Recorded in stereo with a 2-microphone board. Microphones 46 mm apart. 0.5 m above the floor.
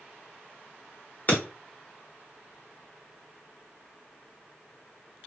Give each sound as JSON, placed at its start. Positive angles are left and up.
{"t": 1.3, "sound": "breaking glass", "side_deg": 40, "distance_m": 1.1}